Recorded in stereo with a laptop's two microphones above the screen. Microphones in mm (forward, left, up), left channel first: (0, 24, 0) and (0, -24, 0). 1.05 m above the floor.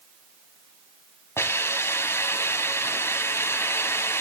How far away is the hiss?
About 2 m.